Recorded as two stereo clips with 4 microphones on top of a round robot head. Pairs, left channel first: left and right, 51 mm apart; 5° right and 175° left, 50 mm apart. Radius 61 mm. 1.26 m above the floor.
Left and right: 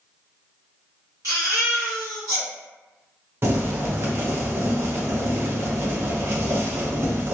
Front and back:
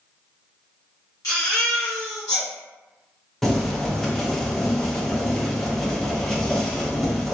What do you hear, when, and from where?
1.2 s a baby crying: 40° right, 1.2 m
3.4 s boiling: 90° right, 0.6 m